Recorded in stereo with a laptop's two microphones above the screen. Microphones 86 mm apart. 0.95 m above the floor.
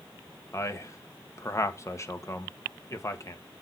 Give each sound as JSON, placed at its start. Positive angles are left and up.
{"t": 0.5, "sound": "a man speaking", "side_deg": 35, "distance_m": 1.3}